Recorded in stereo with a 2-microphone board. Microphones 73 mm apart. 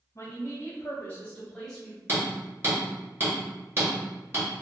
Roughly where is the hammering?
Right.